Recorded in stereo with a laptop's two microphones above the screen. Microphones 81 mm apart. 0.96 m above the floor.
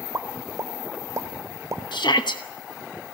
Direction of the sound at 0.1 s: 40° right (ahead or behind).